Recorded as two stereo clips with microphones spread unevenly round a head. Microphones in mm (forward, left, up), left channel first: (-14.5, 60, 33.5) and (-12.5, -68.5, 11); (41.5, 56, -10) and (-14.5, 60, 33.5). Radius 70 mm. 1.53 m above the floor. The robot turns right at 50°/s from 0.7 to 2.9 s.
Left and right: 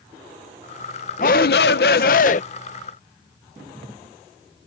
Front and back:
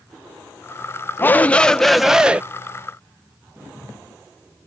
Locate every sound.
1.2 s a shout: 60° left; by 2.4 s 120° left